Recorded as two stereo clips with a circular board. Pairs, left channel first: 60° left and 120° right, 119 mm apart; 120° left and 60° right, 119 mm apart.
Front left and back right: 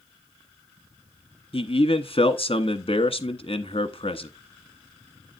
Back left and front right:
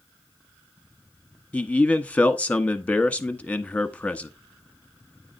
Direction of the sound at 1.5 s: 45° left.